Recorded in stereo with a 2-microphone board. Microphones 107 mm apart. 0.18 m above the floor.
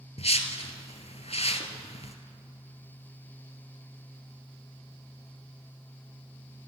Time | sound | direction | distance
0.2 | a whoosh | 75° left (ahead or behind) | 1.1 m